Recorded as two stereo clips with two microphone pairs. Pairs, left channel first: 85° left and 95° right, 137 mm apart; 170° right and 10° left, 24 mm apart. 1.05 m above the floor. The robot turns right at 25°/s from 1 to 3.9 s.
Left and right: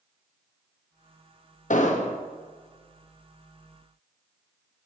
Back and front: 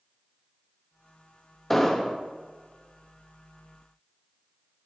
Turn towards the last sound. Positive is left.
turn(degrees=165)